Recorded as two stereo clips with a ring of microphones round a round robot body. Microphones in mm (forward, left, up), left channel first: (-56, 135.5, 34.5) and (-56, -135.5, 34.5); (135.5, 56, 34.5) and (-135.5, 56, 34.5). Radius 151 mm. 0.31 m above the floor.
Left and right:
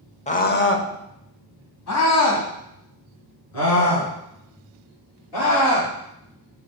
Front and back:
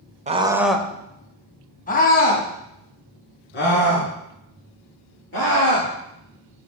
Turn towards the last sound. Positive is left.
turn(degrees=50)